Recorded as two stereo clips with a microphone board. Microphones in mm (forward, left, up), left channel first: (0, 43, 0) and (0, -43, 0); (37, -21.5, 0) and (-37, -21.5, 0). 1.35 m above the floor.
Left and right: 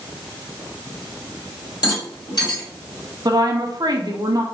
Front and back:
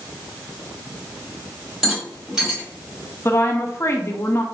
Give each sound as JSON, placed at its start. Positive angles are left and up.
{"t": 1.8, "sound": "a rattle", "azimuth_deg": 95, "distance_m": 1.9}
{"t": 3.2, "sound": "a woman speaking", "azimuth_deg": -55, "distance_m": 0.6}